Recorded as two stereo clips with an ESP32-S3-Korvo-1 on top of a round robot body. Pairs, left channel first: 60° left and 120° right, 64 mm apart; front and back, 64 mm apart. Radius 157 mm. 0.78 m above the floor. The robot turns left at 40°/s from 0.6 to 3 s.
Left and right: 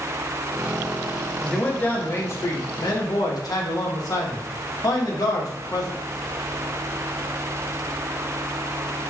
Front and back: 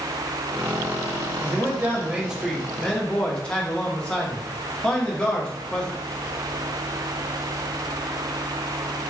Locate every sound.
1.4 s a man speaking: 140° left, 1.1 m; by 5.9 s 75° left, 1.1 m